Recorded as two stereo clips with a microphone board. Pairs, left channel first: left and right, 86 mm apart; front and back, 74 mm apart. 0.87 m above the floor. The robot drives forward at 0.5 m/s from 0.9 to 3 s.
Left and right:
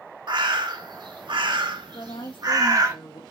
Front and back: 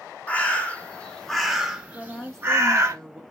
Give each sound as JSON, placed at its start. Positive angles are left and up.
{"t": 0.3, "sound": "a bird", "azimuth_deg": -70, "distance_m": 0.8}
{"t": 1.9, "sound": "a woman speaking", "azimuth_deg": 75, "distance_m": 1.2}